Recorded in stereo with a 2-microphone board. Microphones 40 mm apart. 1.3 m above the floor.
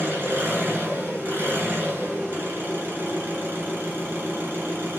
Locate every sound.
0.0 s an engine running: 60° right (ahead or behind), 4.5 m